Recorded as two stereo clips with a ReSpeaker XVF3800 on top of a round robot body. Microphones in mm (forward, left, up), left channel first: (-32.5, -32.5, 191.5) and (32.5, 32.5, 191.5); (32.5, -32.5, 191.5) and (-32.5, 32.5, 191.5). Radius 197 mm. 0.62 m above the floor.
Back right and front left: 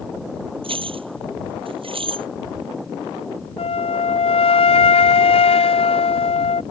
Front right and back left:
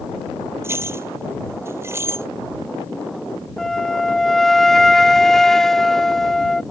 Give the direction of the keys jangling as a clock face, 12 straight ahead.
10 o'clock.